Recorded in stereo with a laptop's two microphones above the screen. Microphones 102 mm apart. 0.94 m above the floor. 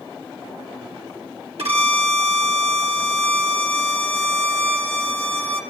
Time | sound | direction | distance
1.6 | a violin | 75° right (ahead or behind) | 2 m